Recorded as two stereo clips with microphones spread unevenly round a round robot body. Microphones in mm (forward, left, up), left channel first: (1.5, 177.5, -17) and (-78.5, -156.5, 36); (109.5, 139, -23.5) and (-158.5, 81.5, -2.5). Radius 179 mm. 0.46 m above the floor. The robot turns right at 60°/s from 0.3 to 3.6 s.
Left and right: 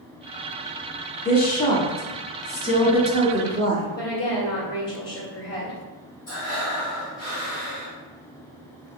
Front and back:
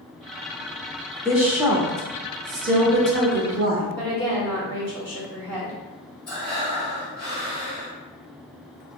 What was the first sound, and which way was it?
A woman speaking, 95° left.